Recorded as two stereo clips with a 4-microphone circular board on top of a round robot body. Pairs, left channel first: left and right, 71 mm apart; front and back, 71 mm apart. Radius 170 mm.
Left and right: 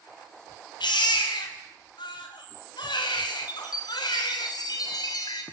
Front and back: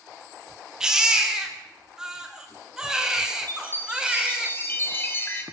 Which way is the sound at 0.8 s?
95° left.